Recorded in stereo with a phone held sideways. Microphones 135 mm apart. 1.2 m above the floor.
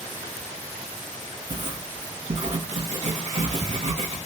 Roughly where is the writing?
Right.